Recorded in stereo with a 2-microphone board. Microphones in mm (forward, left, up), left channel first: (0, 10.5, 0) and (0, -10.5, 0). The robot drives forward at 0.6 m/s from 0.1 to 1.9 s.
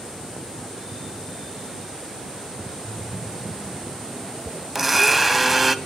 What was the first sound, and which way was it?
A splash, centre (ahead or behind).